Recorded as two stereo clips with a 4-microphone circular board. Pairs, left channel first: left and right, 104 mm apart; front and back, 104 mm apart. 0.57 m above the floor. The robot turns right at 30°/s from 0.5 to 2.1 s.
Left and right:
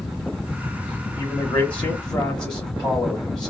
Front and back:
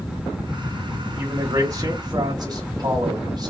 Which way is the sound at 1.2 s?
140° left.